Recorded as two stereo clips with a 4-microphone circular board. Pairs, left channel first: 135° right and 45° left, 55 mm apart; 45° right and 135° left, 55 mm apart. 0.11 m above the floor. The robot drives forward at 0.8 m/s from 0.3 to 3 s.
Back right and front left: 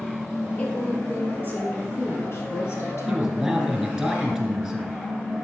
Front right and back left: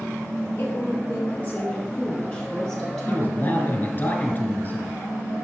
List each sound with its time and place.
0.6 s a woman speaking: 70° right, 2.5 m; by 3.9 s 125° right, 2.5 m
3.1 s a man speaking: 35° right, 1.3 m